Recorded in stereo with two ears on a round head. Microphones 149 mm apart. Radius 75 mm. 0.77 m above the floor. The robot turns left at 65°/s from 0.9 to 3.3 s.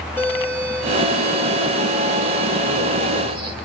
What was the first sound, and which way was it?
A doorbell, 15° left.